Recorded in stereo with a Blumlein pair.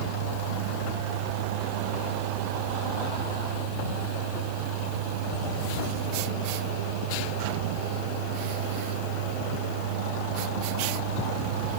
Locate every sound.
0.0 s a fan: 50° right